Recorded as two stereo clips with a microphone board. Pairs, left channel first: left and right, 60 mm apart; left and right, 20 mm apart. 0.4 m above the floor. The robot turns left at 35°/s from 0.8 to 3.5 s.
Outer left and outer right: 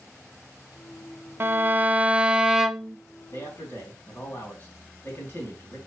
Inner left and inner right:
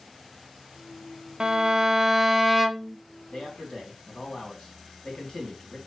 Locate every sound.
1.4 s a violin: 125° right, 0.5 m; by 3.0 s straight behind, 0.5 m
3.3 s a man speaking: 45° left (ahead or behind), 4 m; by 5.8 s 40° left (ahead or behind), 4 m